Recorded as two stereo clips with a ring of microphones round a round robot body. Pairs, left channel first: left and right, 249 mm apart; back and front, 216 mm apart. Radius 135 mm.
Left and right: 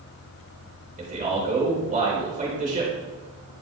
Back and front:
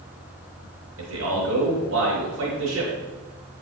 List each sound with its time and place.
1.0 s a man speaking: 30° right, 3.5 m